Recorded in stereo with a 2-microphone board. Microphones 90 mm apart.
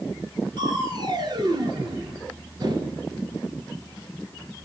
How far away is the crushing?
About 1.3 m.